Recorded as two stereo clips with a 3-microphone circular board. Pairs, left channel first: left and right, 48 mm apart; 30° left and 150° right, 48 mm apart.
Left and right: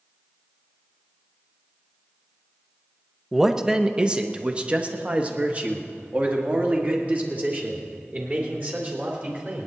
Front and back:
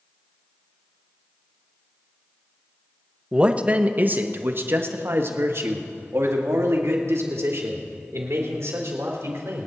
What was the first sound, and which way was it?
A man speaking, 160° right.